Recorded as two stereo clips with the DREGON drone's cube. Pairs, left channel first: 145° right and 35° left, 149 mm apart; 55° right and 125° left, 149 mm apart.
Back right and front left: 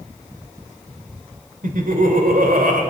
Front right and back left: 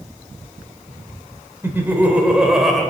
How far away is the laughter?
About 2.5 m.